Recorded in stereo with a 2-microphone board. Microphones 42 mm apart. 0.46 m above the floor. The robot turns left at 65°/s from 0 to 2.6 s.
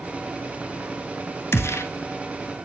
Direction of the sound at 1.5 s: 60° left (ahead or behind).